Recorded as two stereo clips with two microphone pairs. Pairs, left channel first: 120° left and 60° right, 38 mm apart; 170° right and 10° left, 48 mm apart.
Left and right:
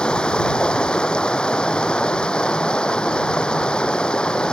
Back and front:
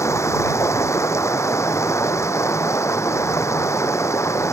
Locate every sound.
0.0 s running water: 175° right